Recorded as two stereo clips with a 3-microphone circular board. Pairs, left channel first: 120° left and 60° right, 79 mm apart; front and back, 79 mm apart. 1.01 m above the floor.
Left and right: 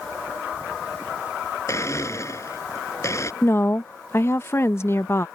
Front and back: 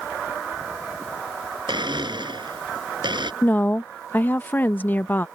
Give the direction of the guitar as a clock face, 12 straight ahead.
No guitar in this recording.